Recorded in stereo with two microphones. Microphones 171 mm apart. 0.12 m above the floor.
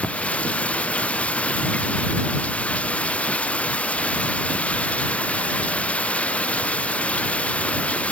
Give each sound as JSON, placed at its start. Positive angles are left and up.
{"t": 0.0, "sound": "running water", "side_deg": 10}